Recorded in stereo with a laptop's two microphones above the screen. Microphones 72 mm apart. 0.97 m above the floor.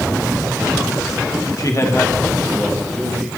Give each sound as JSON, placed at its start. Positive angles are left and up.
{"t": 1.6, "sound": "a man speaking", "side_deg": 55, "distance_m": 1.1}